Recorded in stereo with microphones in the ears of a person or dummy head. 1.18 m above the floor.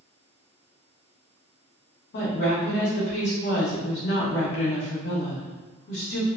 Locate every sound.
2.1 s a woman speaking: 55° left (ahead or behind), 1.1 m